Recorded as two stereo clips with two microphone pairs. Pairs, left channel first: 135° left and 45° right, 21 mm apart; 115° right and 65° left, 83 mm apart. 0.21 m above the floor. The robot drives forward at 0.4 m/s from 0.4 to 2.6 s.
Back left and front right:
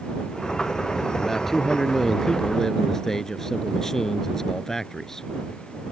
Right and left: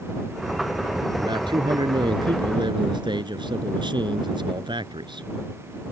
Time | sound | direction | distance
1.2 | a man speaking | 55° left | ?